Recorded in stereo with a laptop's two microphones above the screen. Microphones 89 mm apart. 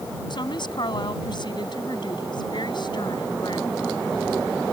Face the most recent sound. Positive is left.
turn(degrees=60)  # may be behind; listen again after turning